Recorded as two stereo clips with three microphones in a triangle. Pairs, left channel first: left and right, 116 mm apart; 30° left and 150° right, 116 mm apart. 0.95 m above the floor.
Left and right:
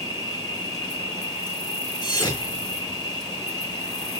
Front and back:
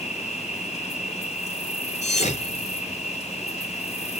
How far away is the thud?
About 4.5 m.